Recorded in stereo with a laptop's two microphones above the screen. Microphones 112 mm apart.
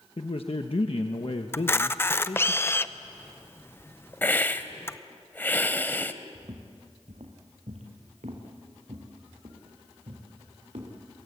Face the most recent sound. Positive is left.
turn(degrees=-80)